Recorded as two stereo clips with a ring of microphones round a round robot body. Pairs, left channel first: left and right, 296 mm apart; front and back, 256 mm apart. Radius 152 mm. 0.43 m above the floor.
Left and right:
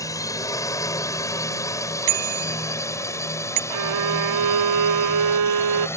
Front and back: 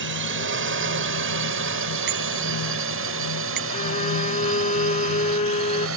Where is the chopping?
I don't hear chopping.